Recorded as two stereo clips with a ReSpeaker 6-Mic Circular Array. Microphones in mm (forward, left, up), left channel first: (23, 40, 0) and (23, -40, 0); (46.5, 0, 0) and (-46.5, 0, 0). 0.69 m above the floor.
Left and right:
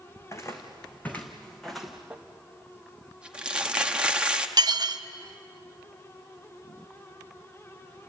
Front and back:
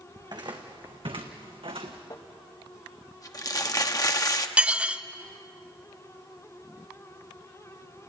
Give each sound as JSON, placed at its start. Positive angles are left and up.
{"t": 0.2, "sound": "footsteps", "azimuth_deg": 140, "distance_m": 2.5}
{"t": 2.1, "sound": "crumpling", "azimuth_deg": -20, "distance_m": 1.1}
{"t": 4.6, "sound": "dishes clattering", "azimuth_deg": -105, "distance_m": 0.6}